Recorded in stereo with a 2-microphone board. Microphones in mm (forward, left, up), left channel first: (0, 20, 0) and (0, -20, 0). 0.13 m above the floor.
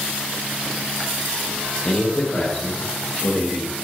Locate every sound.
1.9 s a man speaking: 30° left (ahead or behind), 5 m; by 3.8 s 25° left (ahead or behind), 6 m